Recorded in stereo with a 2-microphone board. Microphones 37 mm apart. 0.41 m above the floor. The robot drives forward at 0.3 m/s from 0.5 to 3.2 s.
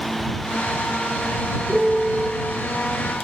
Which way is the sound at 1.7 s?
5° right (ahead or behind).